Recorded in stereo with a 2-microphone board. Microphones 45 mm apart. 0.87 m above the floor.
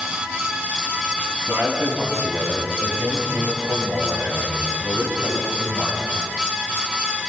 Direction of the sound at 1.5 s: 85° right.